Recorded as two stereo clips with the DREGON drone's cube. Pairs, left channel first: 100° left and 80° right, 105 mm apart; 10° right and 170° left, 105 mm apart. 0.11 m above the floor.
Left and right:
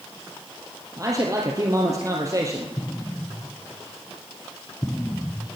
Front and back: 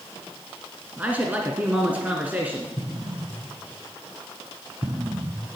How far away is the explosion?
About 0.9 m.